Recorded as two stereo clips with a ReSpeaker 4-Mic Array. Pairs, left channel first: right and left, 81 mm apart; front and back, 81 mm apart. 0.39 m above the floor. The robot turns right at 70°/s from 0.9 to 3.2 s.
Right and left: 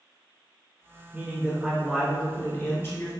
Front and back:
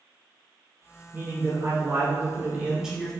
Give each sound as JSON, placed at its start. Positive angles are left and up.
{"t": 1.1, "sound": "a man speaking", "azimuth_deg": 125, "distance_m": 1.5}